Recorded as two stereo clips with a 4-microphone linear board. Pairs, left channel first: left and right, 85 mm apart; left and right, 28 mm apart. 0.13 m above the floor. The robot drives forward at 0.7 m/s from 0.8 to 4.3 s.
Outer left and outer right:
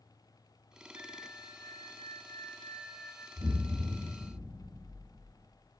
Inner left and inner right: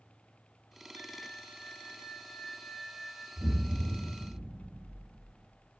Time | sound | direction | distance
0.9 | a flute | 80° left | 0.6 m
3.4 | an explosion | 40° right (ahead or behind) | 3.5 m